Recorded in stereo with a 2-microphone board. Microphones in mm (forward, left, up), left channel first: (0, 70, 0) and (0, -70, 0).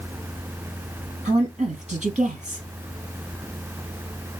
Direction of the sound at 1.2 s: 55° right (ahead or behind).